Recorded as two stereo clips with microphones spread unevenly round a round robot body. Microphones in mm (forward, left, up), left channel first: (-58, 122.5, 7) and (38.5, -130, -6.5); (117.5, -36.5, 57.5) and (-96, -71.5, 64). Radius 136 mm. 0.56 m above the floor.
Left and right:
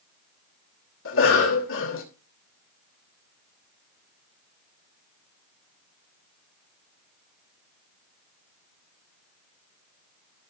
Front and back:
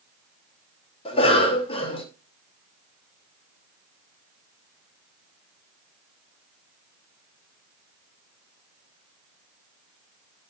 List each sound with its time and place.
1.1 s a cough: 70° left, 2.5 m